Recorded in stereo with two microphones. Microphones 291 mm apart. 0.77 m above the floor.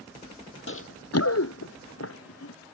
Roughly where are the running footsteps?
Left.